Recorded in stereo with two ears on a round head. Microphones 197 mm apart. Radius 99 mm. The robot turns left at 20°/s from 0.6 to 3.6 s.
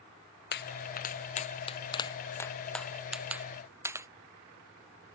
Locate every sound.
0.5 s a pop: 50° left (ahead or behind); by 4.1 s 10° right (ahead or behind)